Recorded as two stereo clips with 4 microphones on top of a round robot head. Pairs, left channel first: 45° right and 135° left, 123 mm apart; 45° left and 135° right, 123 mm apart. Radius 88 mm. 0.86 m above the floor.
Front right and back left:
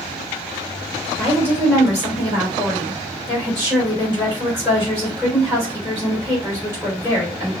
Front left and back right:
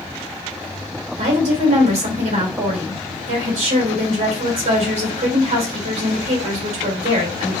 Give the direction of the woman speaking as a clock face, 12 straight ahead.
5 o'clock.